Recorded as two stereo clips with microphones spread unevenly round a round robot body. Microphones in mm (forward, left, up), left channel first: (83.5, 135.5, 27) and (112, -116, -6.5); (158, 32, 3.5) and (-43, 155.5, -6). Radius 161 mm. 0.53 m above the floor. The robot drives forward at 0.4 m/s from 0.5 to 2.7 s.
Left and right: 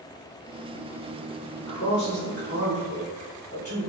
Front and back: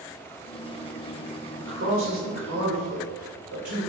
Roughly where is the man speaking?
Behind left.